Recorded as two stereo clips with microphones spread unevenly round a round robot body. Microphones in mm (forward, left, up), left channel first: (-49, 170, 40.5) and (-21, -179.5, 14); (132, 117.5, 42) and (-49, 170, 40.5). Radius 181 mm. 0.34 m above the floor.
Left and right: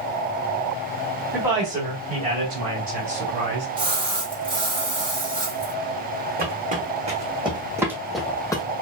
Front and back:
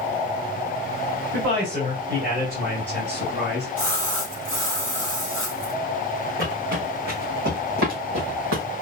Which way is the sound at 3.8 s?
160° right.